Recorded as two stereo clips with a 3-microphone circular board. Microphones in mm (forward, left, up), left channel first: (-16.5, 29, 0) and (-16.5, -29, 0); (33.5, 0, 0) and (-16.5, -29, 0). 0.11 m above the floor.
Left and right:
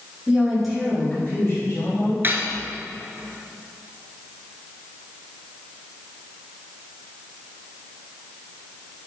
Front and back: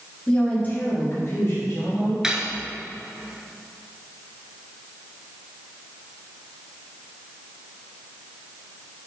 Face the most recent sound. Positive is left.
turn(degrees=-80)